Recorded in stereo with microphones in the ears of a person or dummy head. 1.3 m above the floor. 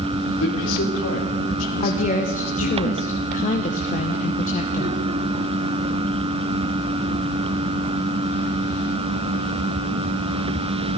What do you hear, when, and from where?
0.4 s a man speaking: 80° left, 3.5 m
1.8 s a woman speaking: 35° left (ahead or behind), 1.0 m